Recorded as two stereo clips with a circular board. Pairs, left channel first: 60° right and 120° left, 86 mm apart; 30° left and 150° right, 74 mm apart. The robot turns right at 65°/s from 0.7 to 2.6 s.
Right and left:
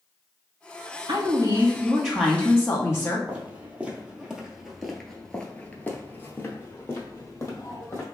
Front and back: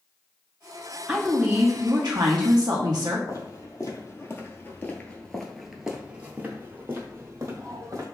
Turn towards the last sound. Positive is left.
turn(degrees=-110)